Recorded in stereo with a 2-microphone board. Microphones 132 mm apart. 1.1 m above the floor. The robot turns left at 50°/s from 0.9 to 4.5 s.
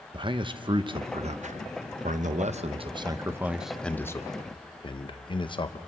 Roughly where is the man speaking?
Right.